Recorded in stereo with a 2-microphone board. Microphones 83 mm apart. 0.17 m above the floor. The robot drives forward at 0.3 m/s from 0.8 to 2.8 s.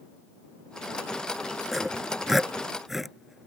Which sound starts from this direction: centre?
Sawing, at 1.7 s.